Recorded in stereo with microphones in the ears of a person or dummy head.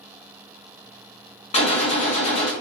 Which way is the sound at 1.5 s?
40° left (ahead or behind).